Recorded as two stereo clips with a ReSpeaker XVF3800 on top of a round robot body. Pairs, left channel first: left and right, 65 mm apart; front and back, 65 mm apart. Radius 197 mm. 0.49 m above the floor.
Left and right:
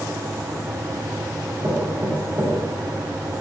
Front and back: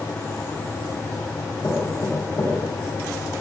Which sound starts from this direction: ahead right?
Knocking, at 1.6 s.